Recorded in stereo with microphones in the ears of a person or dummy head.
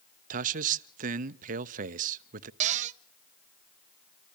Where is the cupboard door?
40° right (ahead or behind), 0.5 m.